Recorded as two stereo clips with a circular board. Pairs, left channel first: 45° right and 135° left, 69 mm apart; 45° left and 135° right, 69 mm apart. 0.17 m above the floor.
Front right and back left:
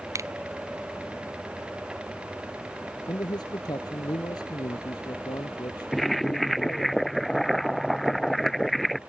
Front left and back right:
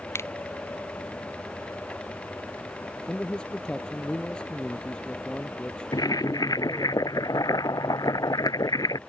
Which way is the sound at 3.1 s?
35° right.